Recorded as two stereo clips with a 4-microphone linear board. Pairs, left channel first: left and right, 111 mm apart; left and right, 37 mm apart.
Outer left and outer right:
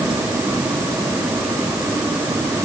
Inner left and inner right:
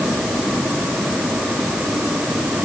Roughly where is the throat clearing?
I don't hear throat clearing.